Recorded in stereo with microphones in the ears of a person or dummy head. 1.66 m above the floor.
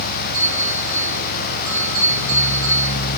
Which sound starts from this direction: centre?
A bell, at 0.3 s.